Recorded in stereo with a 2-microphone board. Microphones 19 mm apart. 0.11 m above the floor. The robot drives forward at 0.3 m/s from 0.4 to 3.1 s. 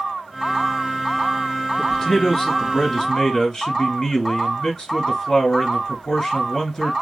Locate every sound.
1.8 s a man speaking: 35° left (ahead or behind), 1.5 m